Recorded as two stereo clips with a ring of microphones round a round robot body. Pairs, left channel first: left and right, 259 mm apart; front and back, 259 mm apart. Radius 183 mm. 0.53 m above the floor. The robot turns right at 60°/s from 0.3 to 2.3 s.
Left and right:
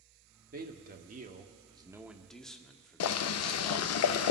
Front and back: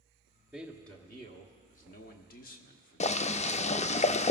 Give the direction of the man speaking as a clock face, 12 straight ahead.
3 o'clock.